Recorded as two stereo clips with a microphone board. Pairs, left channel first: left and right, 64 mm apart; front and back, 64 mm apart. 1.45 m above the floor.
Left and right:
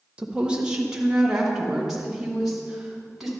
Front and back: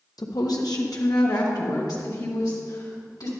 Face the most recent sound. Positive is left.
turn(degrees=-5)